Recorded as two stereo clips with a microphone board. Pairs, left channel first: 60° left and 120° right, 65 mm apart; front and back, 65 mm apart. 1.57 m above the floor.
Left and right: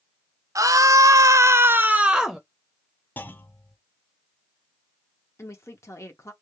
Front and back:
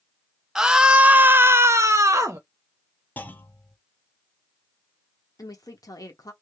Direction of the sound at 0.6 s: 100° right.